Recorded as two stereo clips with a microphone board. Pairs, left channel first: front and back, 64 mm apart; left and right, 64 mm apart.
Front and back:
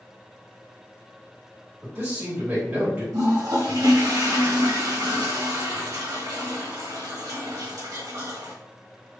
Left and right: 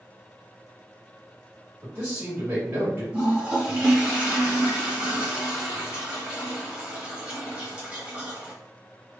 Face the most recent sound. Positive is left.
turn(degrees=-160)